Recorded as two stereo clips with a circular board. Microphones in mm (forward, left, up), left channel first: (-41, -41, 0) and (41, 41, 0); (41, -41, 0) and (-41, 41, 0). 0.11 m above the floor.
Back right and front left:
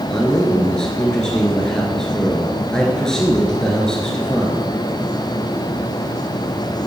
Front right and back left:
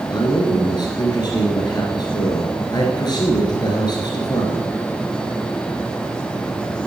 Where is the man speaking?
55° right, 1.6 m.